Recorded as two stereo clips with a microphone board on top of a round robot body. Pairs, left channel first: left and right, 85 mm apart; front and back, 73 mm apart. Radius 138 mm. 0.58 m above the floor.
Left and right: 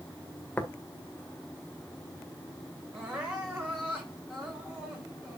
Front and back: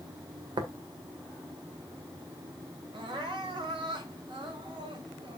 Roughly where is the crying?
Behind.